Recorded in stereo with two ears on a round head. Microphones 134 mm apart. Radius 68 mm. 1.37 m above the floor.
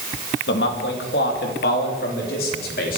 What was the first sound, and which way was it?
A man speaking, 75° left (ahead or behind).